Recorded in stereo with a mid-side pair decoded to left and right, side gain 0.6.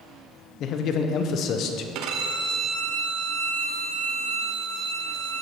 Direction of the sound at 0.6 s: 55° left.